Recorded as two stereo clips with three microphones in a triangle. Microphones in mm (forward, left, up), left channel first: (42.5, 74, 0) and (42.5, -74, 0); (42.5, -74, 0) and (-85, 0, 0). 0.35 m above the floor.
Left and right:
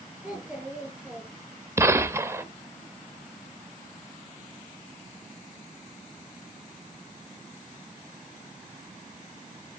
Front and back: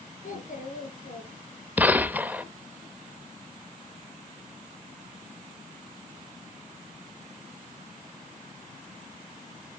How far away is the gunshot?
About 0.5 m.